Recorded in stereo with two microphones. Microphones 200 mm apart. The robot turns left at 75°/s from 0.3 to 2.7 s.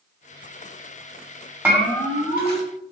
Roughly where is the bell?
Behind.